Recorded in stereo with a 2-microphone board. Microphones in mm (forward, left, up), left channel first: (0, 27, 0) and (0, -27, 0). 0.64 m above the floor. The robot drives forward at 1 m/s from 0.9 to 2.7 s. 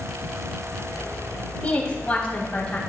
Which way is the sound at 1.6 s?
25° left (ahead or behind).